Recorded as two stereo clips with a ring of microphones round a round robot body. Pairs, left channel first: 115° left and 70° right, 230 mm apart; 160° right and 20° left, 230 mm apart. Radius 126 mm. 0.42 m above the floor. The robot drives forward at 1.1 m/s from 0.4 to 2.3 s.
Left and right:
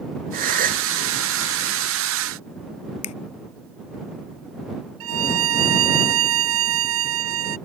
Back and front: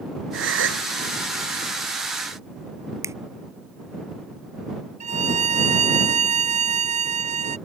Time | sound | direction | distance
0.3 | a gasp | 15° right | ?
3.0 | a finger snap | 100° left | ?
5.0 | a violin | 40° right | ?